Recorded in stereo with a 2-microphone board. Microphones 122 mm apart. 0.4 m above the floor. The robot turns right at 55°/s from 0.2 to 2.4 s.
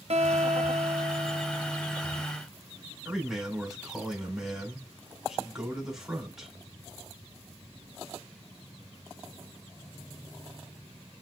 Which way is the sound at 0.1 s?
100° right.